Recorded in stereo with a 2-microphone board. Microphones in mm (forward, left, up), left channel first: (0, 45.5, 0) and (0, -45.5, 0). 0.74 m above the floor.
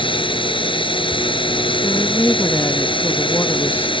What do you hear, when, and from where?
0.0 s a drone: 70° left (ahead or behind)
1.8 s a woman speaking: 25° left (ahead or behind)